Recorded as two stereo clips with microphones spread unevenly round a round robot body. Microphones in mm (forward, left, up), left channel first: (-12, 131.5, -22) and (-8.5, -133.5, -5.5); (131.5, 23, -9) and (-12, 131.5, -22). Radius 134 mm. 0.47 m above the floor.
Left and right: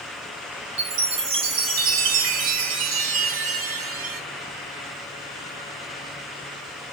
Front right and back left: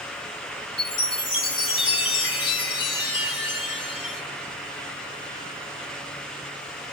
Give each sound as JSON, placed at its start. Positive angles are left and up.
{"t": 0.8, "sound": "a chime", "azimuth_deg": -85, "distance_m": 0.7}